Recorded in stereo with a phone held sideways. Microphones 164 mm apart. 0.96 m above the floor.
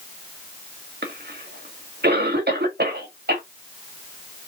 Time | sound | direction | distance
1.0 | a cough | 70° right (ahead or behind) | 1.7 m